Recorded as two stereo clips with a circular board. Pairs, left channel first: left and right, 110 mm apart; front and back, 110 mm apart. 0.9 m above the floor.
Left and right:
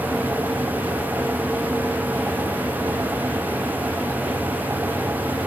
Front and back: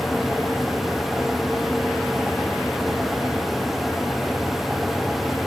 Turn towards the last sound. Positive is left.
No sound to turn to.